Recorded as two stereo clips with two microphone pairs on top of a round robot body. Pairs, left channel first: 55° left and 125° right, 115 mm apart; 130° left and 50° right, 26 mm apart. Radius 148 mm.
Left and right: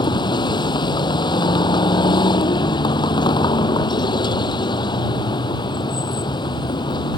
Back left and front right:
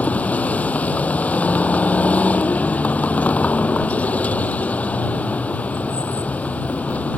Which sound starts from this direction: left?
A vehicle, at 0.0 s.